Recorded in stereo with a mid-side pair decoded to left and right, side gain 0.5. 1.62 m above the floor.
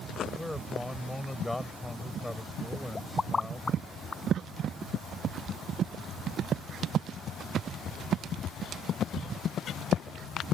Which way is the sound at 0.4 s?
10° left.